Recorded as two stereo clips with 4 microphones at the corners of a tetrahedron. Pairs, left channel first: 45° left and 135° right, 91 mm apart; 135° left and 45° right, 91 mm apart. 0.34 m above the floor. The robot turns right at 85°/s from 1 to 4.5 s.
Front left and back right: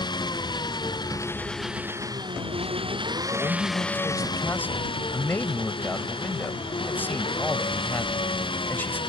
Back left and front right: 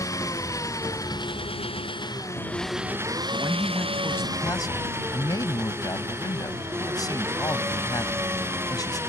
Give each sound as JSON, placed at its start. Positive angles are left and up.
{"t": 0.0, "sound": "an engine running", "azimuth_deg": 80}
{"t": 3.3, "sound": "a man speaking", "azimuth_deg": 5}